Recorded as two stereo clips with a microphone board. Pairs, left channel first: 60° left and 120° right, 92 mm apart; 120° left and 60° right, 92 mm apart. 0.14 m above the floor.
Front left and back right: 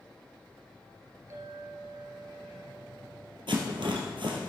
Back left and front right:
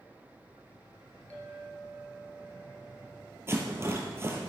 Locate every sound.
1.3 s a clink: 170° right, 2 m
3.5 s a rattle: 120° right, 2 m